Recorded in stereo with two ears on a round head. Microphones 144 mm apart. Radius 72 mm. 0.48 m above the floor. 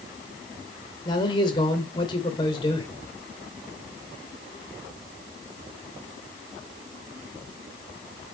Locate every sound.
1.1 s a man speaking: 30° left (ahead or behind), 2 m